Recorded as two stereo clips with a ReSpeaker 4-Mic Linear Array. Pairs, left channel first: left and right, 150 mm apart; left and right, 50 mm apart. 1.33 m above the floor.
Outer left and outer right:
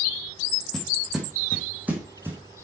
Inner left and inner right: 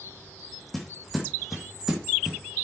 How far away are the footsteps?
About 2.5 m.